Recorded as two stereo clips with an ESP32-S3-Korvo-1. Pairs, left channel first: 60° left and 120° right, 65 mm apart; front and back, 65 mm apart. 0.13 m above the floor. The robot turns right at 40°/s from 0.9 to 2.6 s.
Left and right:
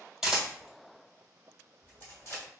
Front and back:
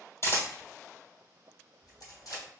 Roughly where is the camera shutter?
Ahead right.